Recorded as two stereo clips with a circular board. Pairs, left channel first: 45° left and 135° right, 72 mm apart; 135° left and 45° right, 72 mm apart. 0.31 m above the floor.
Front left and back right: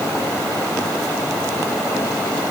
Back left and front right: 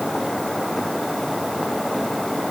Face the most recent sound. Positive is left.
No sound to turn to.